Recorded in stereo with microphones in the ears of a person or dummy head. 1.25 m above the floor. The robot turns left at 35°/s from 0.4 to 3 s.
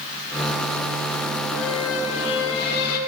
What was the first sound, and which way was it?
A squeak, 105° left.